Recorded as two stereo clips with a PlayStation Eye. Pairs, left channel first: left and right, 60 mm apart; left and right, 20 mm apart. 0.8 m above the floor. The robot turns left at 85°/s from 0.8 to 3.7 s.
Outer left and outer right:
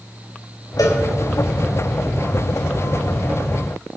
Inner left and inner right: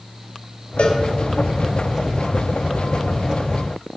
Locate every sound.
0.8 s a cowbell: 80° left, 3 m; by 1.0 s 75° left (ahead or behind), 3 m